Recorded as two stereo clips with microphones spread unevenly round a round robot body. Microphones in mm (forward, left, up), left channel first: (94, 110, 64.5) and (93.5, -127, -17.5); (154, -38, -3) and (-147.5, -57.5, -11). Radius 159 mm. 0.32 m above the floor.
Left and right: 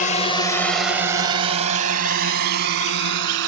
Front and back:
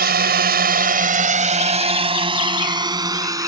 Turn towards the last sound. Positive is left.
turn(degrees=-100)